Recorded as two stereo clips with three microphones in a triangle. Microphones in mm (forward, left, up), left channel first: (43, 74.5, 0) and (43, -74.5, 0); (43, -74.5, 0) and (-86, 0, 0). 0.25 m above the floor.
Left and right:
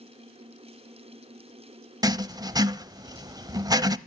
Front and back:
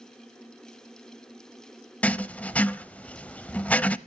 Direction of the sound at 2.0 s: 100° right.